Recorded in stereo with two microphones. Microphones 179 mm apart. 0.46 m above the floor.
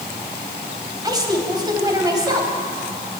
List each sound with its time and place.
1.0 s a woman speaking: 20° right (ahead or behind), 3 m